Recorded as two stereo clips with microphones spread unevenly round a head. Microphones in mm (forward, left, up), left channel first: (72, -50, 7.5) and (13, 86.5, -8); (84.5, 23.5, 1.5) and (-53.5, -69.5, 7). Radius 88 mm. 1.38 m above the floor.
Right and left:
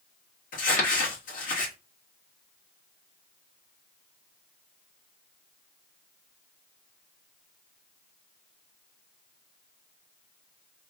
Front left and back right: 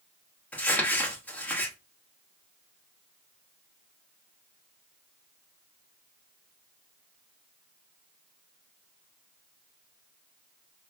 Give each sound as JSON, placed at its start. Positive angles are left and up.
{"t": 0.5, "sound": "crumpling", "azimuth_deg": -50, "distance_m": 1.5}